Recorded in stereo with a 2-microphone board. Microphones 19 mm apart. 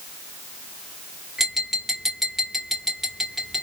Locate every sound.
1.4 s tapping: 20° right (ahead or behind), 2 m